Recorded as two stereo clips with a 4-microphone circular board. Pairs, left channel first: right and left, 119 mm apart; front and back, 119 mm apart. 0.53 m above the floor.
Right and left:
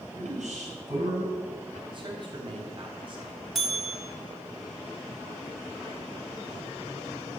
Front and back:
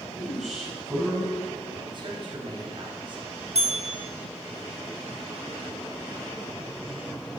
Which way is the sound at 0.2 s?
90° left.